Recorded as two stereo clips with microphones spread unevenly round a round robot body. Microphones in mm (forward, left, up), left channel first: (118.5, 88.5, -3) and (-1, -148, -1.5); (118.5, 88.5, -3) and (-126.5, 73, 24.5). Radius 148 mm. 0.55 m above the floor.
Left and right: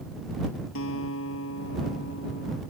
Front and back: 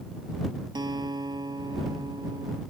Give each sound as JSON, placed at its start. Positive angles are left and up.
{"t": 0.8, "sound": "a guitar", "azimuth_deg": 110}